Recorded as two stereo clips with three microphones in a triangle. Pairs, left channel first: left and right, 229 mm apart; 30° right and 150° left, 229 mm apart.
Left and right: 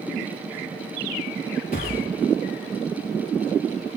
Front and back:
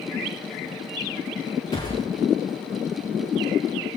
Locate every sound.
1.7 s a gunshot: 40° left, 8.5 m